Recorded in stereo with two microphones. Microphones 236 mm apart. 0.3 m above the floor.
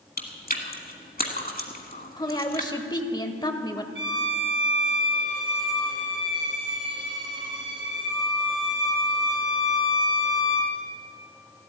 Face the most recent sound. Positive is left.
turn(degrees=-55)  # may be behind; listen again after turning